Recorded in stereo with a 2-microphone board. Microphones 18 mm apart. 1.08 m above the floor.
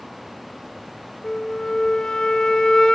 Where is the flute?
45° left (ahead or behind), 1.6 m.